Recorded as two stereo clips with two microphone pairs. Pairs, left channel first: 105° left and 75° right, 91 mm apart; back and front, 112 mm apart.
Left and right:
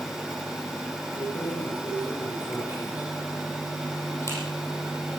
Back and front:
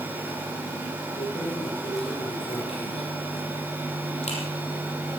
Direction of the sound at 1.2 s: 140° left.